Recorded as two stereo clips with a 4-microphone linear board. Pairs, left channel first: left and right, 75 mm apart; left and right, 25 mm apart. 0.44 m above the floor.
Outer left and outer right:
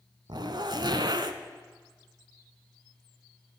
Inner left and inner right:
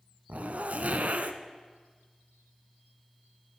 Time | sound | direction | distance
0.3 | a zipper | 75° right (ahead or behind) | 0.9 m